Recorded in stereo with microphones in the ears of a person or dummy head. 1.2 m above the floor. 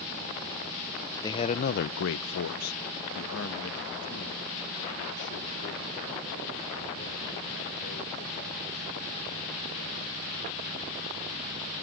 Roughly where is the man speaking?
Centre.